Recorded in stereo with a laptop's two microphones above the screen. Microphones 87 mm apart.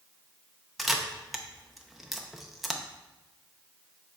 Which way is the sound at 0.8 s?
5° right (ahead or behind).